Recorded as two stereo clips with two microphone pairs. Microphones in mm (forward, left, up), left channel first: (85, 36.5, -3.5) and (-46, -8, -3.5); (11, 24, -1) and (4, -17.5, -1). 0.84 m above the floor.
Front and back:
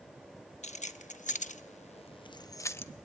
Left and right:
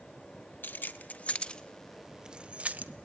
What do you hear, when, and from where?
0.6 s keys jangling: 50° left, 1.0 m; by 2.9 s 55° right, 0.8 m